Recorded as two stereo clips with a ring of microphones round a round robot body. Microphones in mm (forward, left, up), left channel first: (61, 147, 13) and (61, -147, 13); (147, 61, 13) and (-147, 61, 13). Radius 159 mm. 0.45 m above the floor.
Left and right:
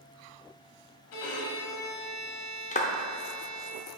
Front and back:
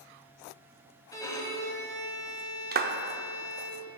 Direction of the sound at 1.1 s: 80° left.